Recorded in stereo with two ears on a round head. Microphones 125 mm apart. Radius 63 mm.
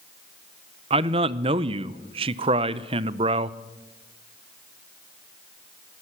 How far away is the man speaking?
About 0.5 m.